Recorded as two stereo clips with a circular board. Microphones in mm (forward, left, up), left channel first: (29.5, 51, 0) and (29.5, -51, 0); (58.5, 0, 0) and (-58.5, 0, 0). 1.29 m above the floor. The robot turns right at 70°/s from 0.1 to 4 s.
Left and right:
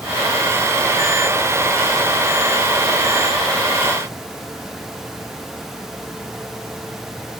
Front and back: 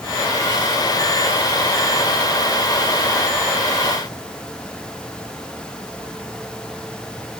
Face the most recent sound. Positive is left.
No sound to turn to.